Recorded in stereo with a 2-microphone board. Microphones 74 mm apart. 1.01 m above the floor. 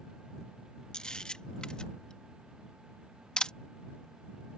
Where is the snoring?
I don't hear snoring.